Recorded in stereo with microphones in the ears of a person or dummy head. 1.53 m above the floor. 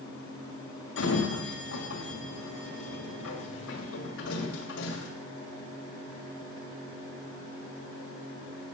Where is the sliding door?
70° left (ahead or behind), 1.8 m.